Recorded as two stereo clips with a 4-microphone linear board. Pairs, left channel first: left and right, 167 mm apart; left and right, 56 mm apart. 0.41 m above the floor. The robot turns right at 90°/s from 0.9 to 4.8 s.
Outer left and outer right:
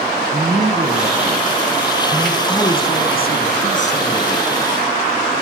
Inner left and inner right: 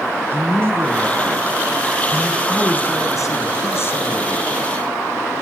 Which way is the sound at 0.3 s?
135° right.